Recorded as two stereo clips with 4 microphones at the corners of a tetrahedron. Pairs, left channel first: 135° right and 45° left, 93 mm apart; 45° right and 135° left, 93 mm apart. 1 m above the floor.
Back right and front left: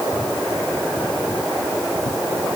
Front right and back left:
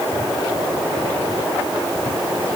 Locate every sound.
Only background noise.